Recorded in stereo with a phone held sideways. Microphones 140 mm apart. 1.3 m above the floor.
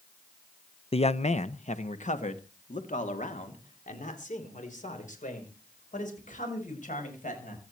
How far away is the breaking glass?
I don't hear breaking glass.